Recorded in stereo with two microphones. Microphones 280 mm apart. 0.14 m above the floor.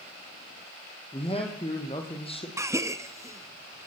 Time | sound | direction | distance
1.1 | a man speaking | 20° left (ahead or behind) | 4 m
2.6 | a gasp | 10° right (ahead or behind) | 0.8 m